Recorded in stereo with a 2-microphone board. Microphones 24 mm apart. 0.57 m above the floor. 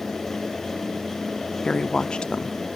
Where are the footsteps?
No footsteps in this recording.